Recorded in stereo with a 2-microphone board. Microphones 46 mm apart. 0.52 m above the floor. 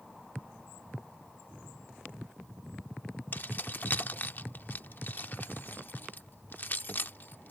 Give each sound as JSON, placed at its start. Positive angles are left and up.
{"t": 3.3, "sound": "keys jangling", "side_deg": 40}